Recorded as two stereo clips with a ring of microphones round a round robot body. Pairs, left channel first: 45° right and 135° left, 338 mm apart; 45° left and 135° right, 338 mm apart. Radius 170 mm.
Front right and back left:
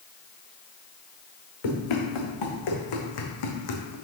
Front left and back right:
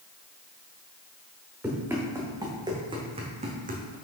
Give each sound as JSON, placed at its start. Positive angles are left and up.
{"t": 1.6, "sound": "running footsteps", "azimuth_deg": -50, "distance_m": 2.5}